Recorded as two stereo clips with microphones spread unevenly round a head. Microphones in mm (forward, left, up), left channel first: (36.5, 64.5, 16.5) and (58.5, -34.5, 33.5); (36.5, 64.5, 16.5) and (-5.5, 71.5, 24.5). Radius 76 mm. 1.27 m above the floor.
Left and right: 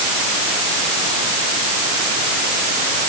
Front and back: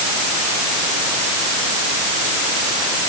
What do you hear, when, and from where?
Only background noise.